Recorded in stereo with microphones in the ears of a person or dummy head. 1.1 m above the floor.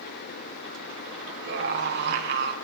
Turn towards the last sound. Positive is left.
turn(degrees=-60)  # may be behind; listen again after turning